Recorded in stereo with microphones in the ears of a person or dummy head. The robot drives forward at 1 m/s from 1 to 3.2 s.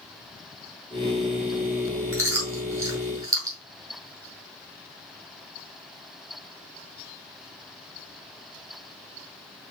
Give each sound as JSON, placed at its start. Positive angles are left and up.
{"t": 2.1, "sound": "chewing", "side_deg": -15, "distance_m": 6.5}